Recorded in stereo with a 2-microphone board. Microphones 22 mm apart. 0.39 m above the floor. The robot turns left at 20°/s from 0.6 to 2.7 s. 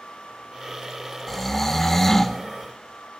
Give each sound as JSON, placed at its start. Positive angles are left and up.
{"t": 1.3, "sound": "snoring", "side_deg": 10, "distance_m": 0.8}